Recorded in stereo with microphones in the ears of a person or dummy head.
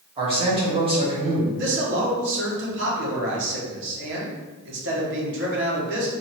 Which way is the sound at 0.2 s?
25° right (ahead or behind).